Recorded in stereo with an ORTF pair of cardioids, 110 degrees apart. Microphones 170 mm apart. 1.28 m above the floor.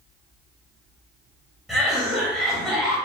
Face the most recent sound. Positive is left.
turn(degrees=0)